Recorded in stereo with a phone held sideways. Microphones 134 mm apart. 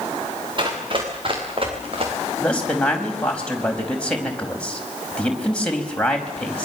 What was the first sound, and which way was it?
Running footsteps, 40° right (ahead or behind).